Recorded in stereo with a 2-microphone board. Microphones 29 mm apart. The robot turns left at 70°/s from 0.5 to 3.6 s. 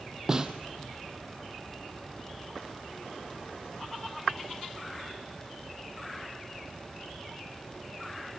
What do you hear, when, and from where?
0.3 s a snare drum: 20° right (ahead or behind), 1.3 m; by 0.5 s 15° right (ahead or behind), 1.3 m